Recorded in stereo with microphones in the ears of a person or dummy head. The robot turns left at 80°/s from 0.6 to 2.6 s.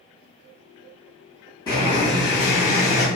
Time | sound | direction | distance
1.7 | boiling | 150° left | 1.5 m